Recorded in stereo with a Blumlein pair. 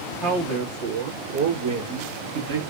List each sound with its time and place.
0.2 s a man speaking: 35° right, 1.9 m; by 2.6 s 80° right, 2 m